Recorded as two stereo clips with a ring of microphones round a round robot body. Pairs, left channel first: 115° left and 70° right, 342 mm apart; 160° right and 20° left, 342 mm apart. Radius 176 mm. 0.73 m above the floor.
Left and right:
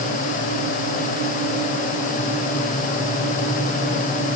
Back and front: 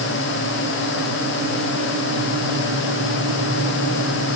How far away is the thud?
I don't hear a thud.